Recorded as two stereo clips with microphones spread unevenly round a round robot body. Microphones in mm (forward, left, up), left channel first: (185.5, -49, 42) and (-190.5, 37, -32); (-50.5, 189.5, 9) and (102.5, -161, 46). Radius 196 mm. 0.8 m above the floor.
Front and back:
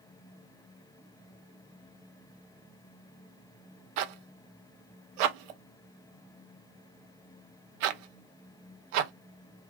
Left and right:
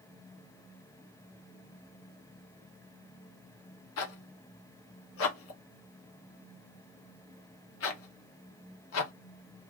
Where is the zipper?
170° left, 0.5 m.